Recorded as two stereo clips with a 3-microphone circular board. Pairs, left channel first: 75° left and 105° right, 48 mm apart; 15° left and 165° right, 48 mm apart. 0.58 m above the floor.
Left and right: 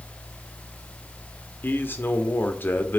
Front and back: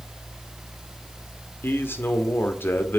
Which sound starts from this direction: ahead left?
A man speaking, at 1.6 s.